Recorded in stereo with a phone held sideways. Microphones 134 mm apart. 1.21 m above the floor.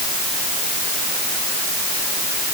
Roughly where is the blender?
No blender in this recording.